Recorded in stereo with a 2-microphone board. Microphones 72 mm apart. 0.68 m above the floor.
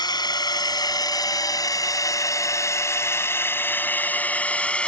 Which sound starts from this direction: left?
A drone, at 0.0 s.